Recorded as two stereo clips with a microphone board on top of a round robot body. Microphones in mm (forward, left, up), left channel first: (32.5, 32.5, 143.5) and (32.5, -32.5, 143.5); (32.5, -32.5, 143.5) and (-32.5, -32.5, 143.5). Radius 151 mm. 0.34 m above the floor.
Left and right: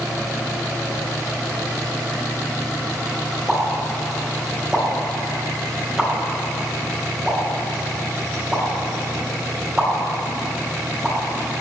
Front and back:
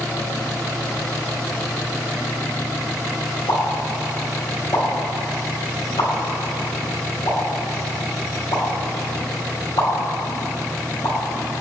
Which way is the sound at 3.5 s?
10° right.